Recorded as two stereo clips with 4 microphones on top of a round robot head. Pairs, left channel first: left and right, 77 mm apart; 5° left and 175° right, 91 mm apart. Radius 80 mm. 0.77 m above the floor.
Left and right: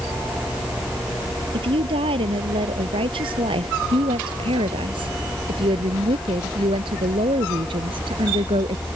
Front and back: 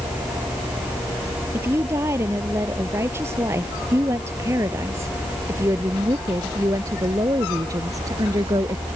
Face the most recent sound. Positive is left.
turn(degrees=-115)